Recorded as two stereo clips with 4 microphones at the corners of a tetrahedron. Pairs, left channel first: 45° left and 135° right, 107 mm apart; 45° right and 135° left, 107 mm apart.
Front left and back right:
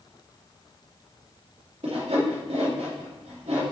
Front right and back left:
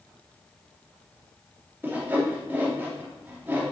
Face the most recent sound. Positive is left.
turn(degrees=-155)